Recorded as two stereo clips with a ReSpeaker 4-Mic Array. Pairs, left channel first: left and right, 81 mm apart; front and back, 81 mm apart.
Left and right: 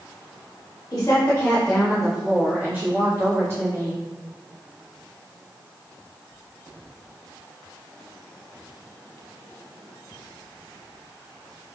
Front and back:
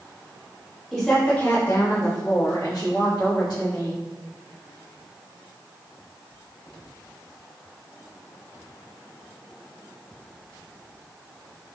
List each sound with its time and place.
0.9 s a woman speaking: 100° left, 1.2 m; by 4.0 s 35° right, 3.5 m